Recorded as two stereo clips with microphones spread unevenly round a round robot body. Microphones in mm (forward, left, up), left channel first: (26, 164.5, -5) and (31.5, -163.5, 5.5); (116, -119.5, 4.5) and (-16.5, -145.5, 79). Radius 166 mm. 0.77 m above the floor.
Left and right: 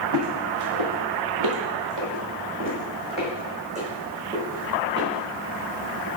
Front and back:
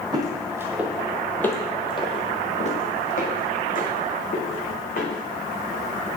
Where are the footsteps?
130° right, 1.9 m; by 6.1 s 5° right, 4.5 m.